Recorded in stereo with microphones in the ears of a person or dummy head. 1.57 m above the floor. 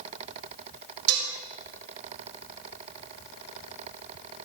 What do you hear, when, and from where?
1.1 s dishes clattering: 80° right, 5 m